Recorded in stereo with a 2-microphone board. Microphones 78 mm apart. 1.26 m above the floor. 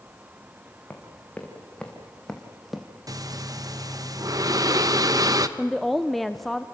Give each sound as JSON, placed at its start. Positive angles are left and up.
{"t": 0.9, "sound": "running footsteps", "side_deg": 20, "distance_m": 4.5}
{"t": 3.1, "sound": "breathing", "side_deg": -50, "distance_m": 0.9}
{"t": 5.6, "sound": "a woman speaking", "side_deg": 0, "distance_m": 0.7}